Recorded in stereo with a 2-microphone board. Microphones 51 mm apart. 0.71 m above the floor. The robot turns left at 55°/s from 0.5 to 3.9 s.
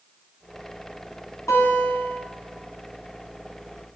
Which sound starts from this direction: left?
A guitar, at 1.5 s.